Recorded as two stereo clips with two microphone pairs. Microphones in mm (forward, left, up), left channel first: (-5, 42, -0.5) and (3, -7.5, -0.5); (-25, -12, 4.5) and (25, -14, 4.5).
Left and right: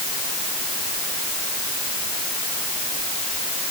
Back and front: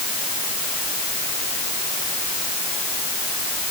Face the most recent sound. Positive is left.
No sound to turn to.